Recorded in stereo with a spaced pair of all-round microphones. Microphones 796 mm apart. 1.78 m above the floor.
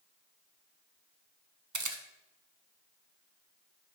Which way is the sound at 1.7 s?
25° right (ahead or behind).